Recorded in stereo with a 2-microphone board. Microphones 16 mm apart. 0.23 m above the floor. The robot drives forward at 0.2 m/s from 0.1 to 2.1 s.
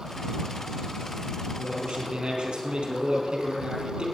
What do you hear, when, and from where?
1.6 s a man speaking: 60° right (ahead or behind), 4.5 m